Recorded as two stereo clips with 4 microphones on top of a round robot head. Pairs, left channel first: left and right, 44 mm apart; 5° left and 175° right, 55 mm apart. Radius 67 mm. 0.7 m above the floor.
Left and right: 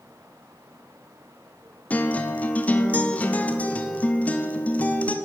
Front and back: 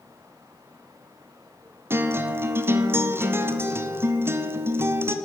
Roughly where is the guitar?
Behind left.